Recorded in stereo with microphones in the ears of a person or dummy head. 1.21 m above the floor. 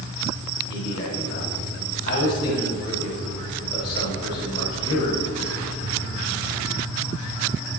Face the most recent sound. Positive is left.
turn(degrees=50)  # may be behind; listen again after turning